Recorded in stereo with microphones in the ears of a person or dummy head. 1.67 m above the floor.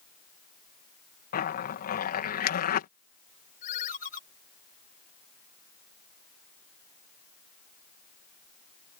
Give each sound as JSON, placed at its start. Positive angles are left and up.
{"t": 1.3, "sound": "a zipper", "side_deg": 55}
{"t": 3.6, "sound": "a ringtone", "side_deg": 40}